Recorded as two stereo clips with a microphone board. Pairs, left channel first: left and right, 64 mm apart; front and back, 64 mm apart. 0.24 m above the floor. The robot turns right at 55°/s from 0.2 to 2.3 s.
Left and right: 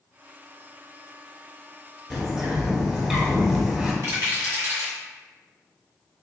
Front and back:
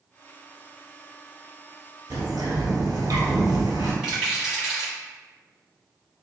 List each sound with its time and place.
2.1 s a bird: 175° left, 1.1 m; by 3.9 s 170° right, 1.1 m
4.0 s a rattle: 105° right, 2.0 m